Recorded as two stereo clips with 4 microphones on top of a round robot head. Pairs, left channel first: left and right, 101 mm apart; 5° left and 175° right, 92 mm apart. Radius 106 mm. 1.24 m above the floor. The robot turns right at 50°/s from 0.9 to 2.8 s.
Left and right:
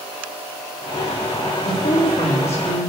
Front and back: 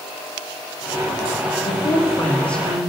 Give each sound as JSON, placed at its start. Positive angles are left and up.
{"t": 1.6, "sound": "a woman speaking", "azimuth_deg": 40, "distance_m": 3.0}